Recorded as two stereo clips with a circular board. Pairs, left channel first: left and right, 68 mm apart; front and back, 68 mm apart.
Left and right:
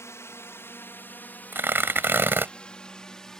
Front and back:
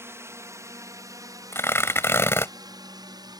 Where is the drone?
130° left; by 3.4 s 170° left.